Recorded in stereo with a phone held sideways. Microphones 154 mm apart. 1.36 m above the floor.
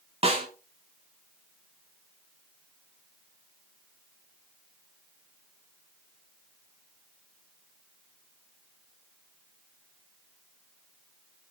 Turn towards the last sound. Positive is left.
turn(degrees=-45)  # may be behind; listen again after turning